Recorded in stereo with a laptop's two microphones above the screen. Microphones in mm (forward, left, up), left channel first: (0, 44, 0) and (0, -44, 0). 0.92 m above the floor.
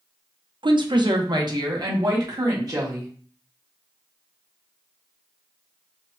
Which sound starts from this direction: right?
A woman speaking, at 0.6 s.